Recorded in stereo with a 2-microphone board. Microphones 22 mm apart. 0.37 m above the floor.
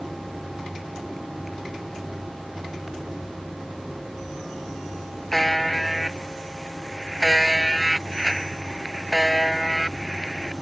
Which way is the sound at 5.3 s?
5° left (ahead or behind).